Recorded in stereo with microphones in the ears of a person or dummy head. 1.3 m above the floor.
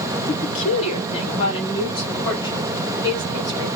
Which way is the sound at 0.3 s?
45° left (ahead or behind).